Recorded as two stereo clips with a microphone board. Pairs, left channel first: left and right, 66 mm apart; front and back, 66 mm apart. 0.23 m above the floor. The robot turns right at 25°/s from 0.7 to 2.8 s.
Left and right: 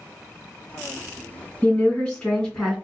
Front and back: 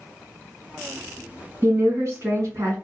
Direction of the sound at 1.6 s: 145° left.